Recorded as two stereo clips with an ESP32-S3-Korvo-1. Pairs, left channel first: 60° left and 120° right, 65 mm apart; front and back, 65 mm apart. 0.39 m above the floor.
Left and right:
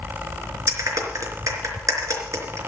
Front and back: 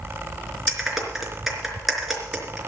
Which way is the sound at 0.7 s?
90° right.